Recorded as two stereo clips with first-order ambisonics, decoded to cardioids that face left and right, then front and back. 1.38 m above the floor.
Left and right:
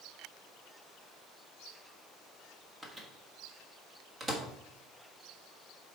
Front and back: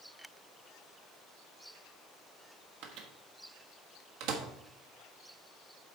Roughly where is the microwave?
Behind.